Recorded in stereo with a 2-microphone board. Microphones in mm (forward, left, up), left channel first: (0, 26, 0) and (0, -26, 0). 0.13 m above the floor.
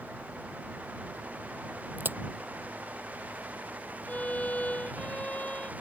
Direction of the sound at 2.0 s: 40° right (ahead or behind).